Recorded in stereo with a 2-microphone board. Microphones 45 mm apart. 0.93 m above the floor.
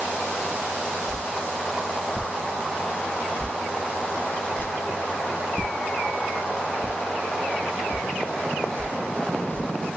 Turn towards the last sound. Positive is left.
turn(degrees=50)  # may be behind; listen again after turning